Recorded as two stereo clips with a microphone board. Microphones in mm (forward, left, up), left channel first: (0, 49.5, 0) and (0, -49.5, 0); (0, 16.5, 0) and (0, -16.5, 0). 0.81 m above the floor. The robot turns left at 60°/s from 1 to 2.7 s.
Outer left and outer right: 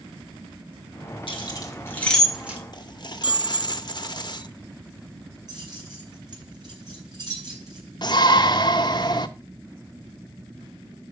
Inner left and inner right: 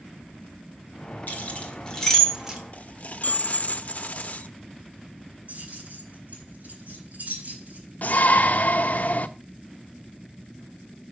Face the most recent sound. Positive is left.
turn(degrees=45)  # may be behind; listen again after turning